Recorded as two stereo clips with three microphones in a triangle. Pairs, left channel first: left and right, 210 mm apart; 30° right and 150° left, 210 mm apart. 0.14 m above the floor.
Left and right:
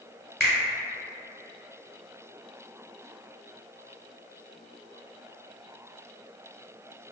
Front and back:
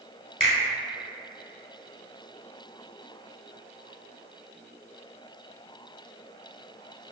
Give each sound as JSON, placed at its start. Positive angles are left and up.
{"t": 0.4, "sound": "a finger snap", "azimuth_deg": 15, "distance_m": 1.2}